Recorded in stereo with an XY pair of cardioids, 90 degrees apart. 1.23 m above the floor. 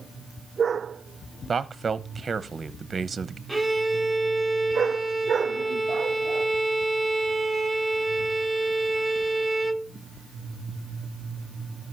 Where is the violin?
5° right, 1.3 m.